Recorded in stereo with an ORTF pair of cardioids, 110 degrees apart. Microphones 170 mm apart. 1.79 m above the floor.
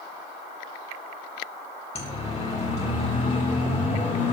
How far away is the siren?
About 3 m.